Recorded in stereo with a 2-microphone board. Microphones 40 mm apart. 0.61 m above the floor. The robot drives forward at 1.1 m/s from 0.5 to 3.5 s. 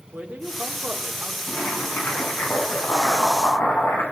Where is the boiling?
55° left (ahead or behind), 8 m; by 4.0 s 70° left (ahead or behind), 7 m.